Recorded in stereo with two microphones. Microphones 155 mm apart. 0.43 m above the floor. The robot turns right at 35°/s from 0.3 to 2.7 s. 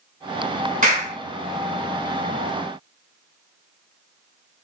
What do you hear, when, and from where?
0.8 s a clap: 60° right (ahead or behind), 2.5 m; by 1.2 s 45° right (ahead or behind), 2.5 m